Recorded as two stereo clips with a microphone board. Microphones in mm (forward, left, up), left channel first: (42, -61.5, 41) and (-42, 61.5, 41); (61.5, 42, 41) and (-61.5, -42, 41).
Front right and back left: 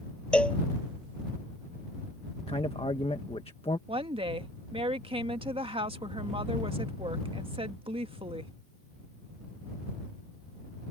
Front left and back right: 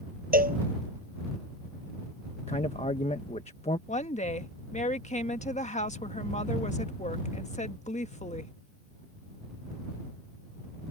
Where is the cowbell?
140° right.